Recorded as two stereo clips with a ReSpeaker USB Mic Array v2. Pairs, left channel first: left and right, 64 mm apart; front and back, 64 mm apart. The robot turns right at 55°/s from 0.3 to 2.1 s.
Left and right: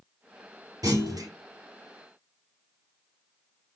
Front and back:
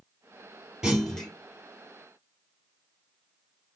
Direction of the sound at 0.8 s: 100° right.